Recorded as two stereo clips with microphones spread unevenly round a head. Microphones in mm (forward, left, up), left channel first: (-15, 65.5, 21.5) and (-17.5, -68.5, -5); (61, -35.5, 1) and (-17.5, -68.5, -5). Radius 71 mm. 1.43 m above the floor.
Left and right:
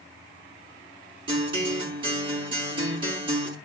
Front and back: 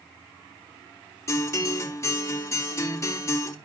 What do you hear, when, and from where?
1.3 s a guitar: 30° right, 4 m